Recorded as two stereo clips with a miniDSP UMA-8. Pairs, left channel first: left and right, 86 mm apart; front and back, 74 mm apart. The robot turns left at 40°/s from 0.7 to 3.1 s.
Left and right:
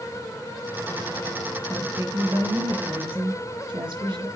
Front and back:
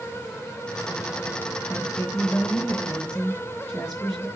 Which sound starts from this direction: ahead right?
A woman speaking, at 1.7 s.